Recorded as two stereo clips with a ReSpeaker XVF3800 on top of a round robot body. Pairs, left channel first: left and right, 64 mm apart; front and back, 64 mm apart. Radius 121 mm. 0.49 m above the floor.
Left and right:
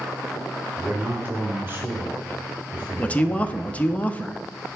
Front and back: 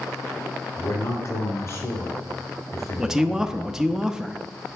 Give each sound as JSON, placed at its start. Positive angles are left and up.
{"t": 0.8, "sound": "a man speaking", "azimuth_deg": -30, "distance_m": 2.5}
{"t": 3.0, "sound": "a man speaking", "azimuth_deg": 115, "distance_m": 0.7}